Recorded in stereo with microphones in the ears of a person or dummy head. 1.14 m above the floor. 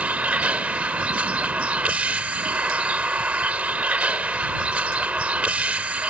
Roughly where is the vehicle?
Centre.